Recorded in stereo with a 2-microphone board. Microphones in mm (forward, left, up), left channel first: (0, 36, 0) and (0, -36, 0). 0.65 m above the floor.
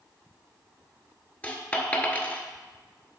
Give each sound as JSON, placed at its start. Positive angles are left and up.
{"t": 1.4, "sound": "a dropped coin", "side_deg": 20, "distance_m": 0.8}